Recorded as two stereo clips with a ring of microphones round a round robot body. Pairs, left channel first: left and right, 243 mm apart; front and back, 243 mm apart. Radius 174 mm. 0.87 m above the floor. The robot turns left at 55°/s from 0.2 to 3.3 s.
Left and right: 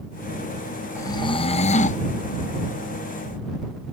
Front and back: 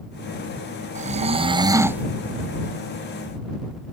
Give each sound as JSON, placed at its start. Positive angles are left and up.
{"t": 0.9, "sound": "snoring", "azimuth_deg": 160}